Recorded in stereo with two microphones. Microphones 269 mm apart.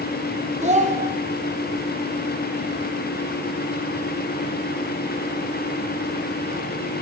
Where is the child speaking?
25° right (ahead or behind), 0.8 m.